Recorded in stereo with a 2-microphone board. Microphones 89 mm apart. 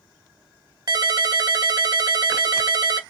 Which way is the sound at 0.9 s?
45° right (ahead or behind).